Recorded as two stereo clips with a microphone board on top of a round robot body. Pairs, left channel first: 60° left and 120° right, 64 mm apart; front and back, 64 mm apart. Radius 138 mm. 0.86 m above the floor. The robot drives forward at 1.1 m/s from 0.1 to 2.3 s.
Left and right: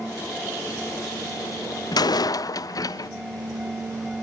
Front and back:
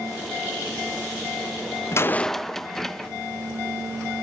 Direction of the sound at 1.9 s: 45° left.